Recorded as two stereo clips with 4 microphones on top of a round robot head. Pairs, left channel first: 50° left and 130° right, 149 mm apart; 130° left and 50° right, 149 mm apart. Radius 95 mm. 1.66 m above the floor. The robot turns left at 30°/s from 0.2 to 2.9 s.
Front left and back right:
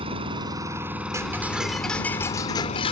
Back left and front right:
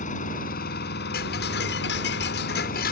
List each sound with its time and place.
0.0 s an engine running: 170° left; by 2.9 s 90° left
1.1 s ticking: 155° left; by 2.9 s 105° left